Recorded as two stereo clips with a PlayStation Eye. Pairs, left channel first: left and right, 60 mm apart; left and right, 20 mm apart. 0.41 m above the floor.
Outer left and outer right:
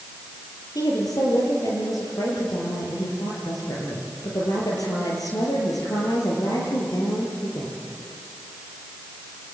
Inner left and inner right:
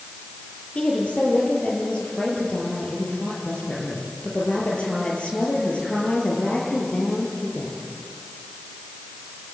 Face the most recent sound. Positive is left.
turn(degrees=85)